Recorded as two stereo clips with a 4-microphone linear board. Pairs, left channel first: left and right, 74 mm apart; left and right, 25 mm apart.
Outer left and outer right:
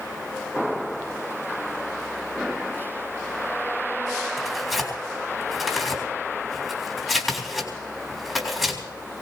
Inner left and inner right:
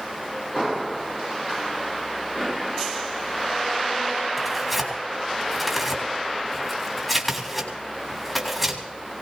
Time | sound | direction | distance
4.4 | tearing paper | 5° left (ahead or behind) | 3.5 m